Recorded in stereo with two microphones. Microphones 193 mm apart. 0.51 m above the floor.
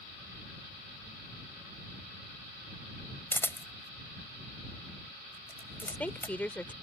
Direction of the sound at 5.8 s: 10° left (ahead or behind).